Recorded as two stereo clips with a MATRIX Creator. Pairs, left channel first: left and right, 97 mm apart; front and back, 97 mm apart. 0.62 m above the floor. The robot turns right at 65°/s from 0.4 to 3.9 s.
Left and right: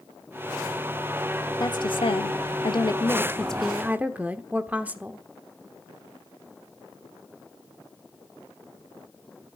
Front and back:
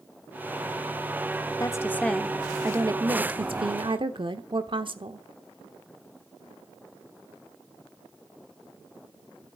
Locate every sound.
1.6 s a woman speaking: 50° left, 1.2 m; by 5.2 s 160° right, 1.2 m